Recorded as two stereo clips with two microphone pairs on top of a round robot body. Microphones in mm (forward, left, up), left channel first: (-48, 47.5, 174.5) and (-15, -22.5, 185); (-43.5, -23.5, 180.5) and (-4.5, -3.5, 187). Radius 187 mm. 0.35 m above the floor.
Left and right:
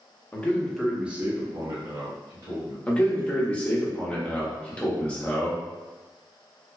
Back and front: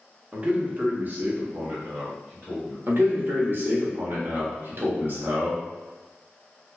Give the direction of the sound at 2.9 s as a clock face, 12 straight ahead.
10 o'clock.